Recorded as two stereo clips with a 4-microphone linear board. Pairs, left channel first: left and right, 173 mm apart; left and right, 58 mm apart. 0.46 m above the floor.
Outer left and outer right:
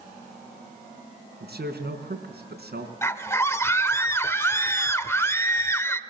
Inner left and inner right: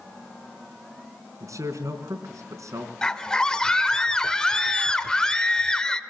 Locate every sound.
1.4 s a man speaking: 70° right (ahead or behind), 4.5 m
3.0 s a scream: 15° left (ahead or behind), 1.5 m